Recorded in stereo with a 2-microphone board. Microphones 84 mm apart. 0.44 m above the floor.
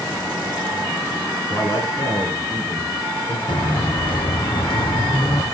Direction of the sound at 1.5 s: 40° left (ahead or behind).